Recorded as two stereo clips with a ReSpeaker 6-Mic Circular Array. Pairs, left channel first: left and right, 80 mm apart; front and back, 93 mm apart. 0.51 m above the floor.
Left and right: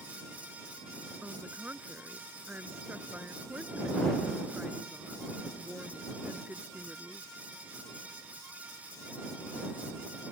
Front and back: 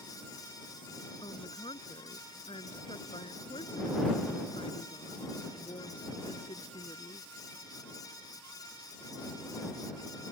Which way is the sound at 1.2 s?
20° right.